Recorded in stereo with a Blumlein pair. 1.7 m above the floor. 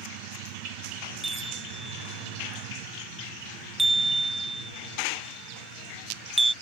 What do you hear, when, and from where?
1.2 s a chime: 5° right